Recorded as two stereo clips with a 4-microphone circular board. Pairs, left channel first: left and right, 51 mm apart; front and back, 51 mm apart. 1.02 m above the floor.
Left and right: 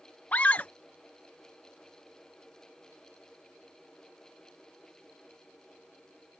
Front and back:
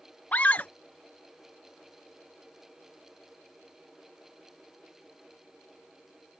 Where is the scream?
45° left.